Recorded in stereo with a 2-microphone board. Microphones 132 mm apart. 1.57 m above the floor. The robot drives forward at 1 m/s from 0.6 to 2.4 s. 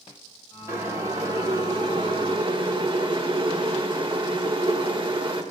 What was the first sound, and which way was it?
Boiling, 25° right (ahead or behind).